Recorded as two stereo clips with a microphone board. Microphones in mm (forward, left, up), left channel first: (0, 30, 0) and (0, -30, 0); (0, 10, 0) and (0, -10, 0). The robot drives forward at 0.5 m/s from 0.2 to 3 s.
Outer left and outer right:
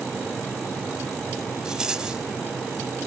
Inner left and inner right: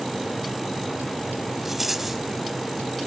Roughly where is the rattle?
Centre.